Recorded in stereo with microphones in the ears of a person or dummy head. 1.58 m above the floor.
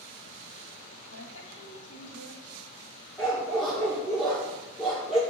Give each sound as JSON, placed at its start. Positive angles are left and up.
{"t": 1.1, "sound": "a woman speaking", "side_deg": 80, "distance_m": 2.5}
{"t": 3.2, "sound": "a dog barking", "side_deg": 5, "distance_m": 1.8}